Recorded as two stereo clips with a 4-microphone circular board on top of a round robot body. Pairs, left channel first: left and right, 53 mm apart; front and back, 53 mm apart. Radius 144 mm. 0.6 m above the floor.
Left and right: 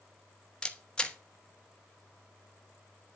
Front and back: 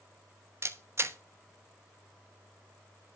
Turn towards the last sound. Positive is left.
turn(degrees=160)